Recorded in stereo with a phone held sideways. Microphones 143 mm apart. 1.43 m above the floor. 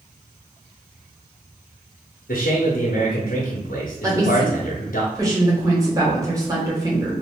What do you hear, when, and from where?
2.3 s a man speaking: 85° left, 0.8 m
4.0 s a woman speaking: 25° right (ahead or behind), 1.3 m